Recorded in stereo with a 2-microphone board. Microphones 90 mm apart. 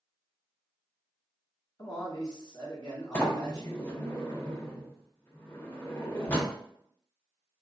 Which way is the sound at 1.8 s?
45° left (ahead or behind).